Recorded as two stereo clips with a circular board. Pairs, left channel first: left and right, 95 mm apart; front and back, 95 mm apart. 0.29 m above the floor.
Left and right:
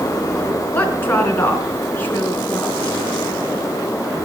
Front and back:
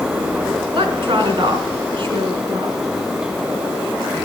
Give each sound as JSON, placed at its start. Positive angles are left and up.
{"t": 0.7, "sound": "a woman speaking", "azimuth_deg": 160, "distance_m": 3.0}